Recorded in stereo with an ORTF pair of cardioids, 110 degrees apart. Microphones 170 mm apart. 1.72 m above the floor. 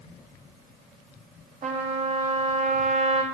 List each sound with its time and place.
1.6 s a trumpet: 45° right, 3 m